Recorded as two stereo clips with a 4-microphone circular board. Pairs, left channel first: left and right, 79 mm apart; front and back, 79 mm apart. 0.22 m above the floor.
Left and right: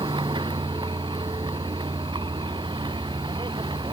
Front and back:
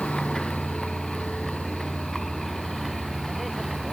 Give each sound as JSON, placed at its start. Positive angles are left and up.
{"t": 0.0, "sound": "a vehicle", "azimuth_deg": -80}